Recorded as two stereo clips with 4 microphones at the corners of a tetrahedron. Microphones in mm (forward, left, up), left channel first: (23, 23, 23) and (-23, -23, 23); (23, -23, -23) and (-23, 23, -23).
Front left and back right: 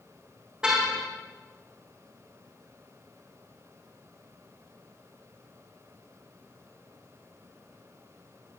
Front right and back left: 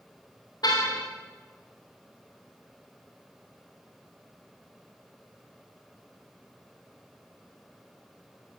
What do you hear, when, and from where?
0.6 s a car horn: 55° right, 5 m